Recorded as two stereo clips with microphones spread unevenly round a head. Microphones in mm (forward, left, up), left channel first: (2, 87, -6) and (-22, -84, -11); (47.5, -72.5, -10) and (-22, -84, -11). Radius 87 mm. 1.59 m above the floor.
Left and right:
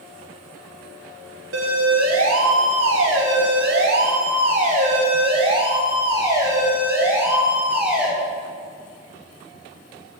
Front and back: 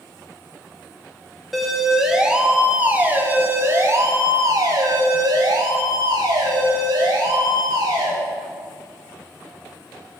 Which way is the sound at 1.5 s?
80° right.